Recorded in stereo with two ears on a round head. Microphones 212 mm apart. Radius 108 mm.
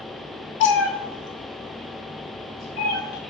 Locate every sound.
0.6 s a cat meowing: 50° left (ahead or behind), 0.5 m; by 3.2 s 75° left (ahead or behind), 1.8 m